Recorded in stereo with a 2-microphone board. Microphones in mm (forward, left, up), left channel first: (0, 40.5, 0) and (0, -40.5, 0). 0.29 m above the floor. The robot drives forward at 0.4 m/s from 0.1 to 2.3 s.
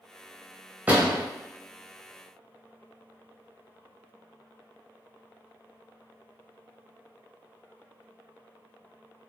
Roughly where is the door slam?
Right.